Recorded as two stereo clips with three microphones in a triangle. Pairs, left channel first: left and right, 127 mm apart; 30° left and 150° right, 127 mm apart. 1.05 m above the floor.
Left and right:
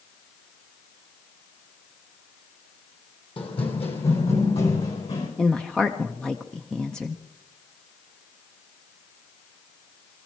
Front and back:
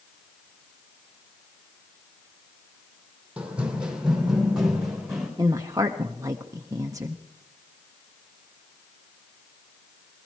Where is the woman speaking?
170° left, 0.7 m.